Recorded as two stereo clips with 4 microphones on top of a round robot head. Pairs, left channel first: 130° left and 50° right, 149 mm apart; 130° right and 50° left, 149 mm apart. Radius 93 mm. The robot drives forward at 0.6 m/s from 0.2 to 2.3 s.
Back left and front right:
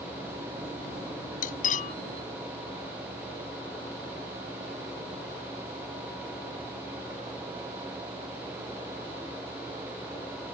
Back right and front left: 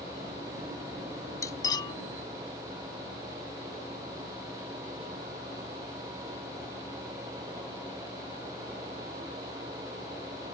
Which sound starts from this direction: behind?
Cutlery clinking, at 1.4 s.